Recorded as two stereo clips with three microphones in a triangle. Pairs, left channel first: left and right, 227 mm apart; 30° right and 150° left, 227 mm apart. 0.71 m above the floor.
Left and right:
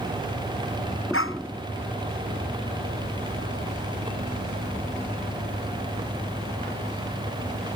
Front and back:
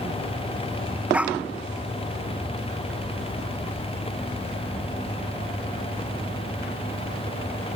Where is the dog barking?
65° left.